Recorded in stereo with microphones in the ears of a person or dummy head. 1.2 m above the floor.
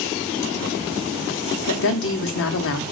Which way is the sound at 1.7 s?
65° left (ahead or behind).